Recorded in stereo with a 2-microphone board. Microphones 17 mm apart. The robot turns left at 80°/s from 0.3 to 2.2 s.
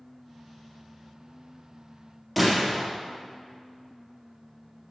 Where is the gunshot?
5° right (ahead or behind), 3 m.